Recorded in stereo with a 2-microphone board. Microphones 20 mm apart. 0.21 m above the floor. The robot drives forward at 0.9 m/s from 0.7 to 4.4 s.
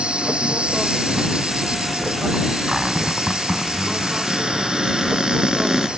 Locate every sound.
0.0 s an insect: 60° right (ahead or behind); by 6.0 s 50° right (ahead or behind)
2.7 s a cupboard door: 30° right (ahead or behind); by 5.9 s 15° right (ahead or behind)